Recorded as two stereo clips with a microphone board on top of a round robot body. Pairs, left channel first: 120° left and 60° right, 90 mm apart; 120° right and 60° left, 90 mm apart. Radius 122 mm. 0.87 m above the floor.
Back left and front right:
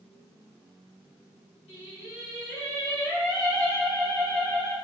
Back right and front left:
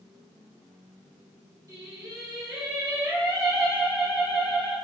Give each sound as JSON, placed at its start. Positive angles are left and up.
{"t": 1.7, "sound": "singing", "azimuth_deg": 115, "distance_m": 1.4}